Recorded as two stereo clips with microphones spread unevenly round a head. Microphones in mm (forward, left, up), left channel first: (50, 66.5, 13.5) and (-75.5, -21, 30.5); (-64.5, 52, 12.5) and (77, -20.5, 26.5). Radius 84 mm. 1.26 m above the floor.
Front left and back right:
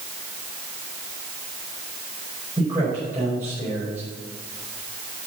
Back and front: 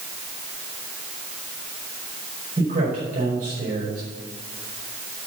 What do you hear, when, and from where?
2.6 s a man speaking: 70° right, 4.5 m